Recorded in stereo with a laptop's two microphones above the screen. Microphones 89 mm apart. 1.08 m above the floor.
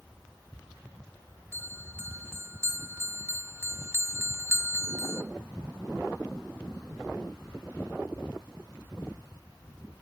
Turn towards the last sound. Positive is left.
turn(degrees=-30)  # may be behind; listen again after turning